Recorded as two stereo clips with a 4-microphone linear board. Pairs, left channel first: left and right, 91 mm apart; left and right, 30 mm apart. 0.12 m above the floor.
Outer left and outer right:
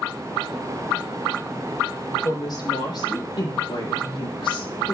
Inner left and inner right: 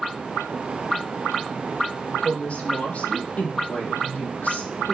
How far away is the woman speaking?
About 5.5 m.